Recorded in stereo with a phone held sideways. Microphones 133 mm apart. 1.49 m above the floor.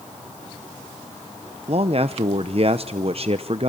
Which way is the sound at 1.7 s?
50° right (ahead or behind).